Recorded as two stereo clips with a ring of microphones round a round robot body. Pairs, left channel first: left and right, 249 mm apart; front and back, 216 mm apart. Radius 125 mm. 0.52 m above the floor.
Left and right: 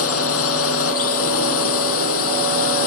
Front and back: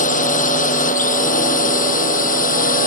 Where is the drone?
55° left; by 2.9 s 50° left.